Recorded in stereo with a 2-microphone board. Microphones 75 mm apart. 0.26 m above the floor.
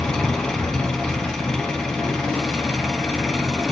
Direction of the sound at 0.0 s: 10° left (ahead or behind).